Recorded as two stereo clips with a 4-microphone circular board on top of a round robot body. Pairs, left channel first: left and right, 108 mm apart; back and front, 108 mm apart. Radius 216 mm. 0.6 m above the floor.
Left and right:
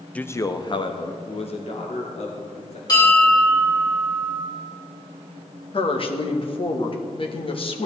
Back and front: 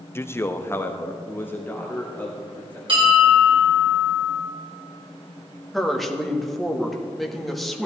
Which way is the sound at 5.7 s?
90° left.